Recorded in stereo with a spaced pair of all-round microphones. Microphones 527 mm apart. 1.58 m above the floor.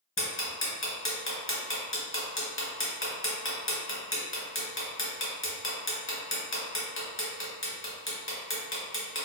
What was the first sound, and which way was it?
Ticking, 25° left (ahead or behind).